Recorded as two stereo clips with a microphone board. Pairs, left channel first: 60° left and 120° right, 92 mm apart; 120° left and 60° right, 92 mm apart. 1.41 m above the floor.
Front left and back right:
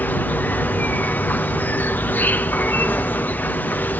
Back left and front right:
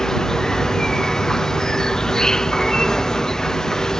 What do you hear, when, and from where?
0.0 s an insect: 50° left